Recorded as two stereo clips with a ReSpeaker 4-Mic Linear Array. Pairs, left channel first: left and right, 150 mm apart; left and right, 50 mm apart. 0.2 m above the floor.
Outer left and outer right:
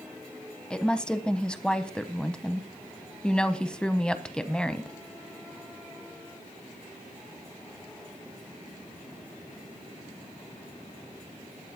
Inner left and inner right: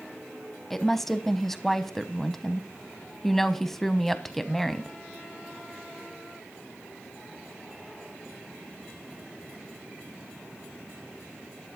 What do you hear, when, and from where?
0.7 s a woman speaking: 5° left (ahead or behind), 1.0 m